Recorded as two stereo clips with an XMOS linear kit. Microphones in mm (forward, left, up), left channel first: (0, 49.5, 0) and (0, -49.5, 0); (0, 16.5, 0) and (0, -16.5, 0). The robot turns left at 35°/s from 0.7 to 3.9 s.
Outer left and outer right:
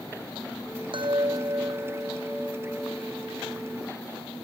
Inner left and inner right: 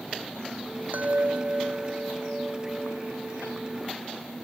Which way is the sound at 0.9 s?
120° right.